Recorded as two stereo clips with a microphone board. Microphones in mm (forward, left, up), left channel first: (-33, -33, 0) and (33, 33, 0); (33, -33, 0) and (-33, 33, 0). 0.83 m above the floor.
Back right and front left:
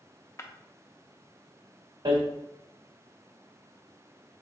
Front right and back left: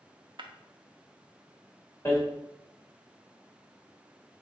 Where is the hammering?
15° left, 1.2 m.